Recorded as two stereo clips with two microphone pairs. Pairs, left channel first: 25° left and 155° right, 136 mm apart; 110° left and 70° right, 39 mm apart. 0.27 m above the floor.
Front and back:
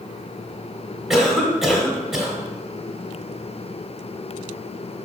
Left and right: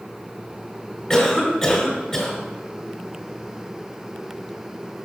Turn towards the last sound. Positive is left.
turn(degrees=120)